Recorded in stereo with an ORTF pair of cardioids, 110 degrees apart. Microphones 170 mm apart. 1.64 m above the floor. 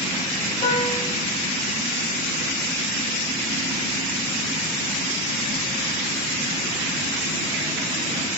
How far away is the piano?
About 7 m.